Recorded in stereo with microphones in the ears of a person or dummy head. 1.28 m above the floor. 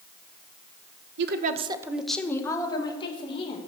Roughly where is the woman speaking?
Right.